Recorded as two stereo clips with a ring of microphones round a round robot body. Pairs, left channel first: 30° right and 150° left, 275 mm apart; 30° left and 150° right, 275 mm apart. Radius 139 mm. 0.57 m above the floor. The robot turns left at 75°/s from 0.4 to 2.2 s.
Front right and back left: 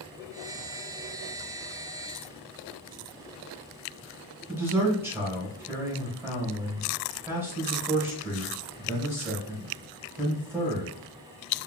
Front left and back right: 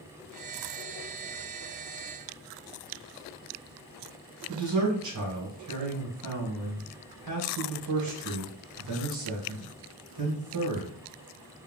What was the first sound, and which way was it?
A man speaking, 130° right.